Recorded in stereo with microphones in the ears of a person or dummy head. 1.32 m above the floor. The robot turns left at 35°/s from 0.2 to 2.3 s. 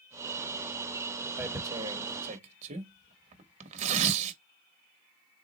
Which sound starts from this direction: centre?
Tearing paper, at 1.4 s.